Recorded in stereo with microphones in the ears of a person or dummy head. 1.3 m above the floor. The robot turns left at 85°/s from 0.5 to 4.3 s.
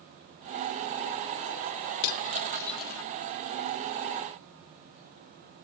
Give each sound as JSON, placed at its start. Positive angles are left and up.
{"t": 2.0, "sound": "cutlery clinking", "side_deg": 55, "distance_m": 0.8}